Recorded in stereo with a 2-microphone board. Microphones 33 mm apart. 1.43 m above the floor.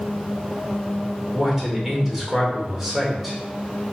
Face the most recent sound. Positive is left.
turn(degrees=-5)  # may be behind; listen again after turning